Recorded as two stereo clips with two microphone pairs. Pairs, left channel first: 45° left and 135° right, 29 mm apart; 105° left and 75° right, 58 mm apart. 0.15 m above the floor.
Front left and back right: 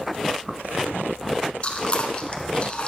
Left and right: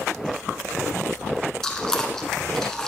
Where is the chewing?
30° left, 0.8 m.